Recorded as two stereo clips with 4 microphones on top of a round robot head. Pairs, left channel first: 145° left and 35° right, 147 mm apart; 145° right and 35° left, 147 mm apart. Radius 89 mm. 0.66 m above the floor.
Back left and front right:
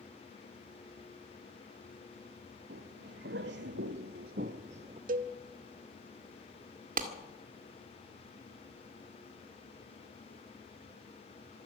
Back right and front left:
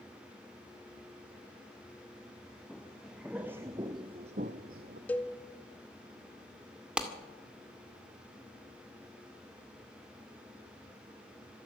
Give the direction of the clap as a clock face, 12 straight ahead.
2 o'clock.